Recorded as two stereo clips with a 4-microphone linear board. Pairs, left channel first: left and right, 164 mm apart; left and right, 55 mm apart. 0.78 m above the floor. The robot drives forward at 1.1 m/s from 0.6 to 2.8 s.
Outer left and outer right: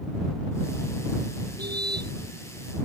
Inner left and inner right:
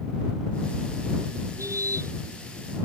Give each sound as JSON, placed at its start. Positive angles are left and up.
{"t": 1.6, "sound": "a car horn", "side_deg": -80}